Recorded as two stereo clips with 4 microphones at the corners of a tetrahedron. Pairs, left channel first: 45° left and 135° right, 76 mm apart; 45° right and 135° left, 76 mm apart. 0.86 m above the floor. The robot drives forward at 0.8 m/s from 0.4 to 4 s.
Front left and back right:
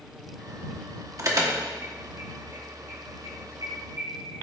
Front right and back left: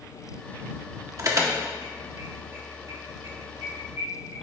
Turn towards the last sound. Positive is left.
turn(degrees=180)